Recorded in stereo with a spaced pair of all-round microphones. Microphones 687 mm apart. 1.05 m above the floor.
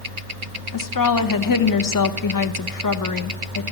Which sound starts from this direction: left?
A woman speaking, at 0.7 s.